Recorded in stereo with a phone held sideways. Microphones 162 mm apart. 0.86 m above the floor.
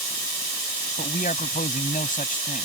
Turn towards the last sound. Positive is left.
turn(degrees=55)  # may be behind; listen again after turning